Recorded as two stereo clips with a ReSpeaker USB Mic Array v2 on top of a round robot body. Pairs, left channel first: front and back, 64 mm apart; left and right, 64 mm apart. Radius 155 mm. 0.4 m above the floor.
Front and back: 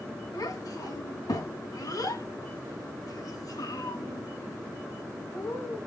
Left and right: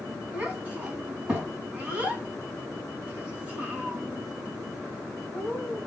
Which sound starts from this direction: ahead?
A child speaking, at 0.3 s.